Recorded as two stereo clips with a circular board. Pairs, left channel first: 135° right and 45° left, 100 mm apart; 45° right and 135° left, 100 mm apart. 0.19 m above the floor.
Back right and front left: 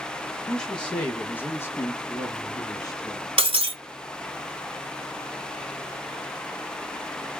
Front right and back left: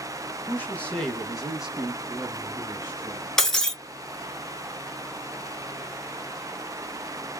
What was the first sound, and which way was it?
A man speaking, 55° right.